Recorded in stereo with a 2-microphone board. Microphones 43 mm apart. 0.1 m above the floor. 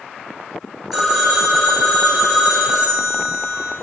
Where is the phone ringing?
5° right (ahead or behind), 0.9 m.